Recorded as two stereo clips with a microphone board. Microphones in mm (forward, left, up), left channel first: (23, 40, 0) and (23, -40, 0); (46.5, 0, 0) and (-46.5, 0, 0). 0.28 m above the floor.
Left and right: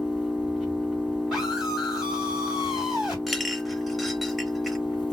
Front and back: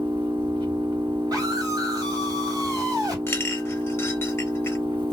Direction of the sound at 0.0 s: 175° right.